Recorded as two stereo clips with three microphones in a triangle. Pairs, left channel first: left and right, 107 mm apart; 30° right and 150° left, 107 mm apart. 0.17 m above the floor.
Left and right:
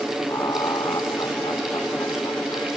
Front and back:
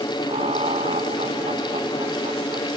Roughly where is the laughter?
Behind left.